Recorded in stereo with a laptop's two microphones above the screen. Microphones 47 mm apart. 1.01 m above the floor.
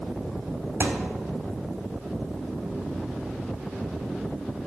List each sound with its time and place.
0.8 s a thud: 50° right (ahead or behind), 1.3 m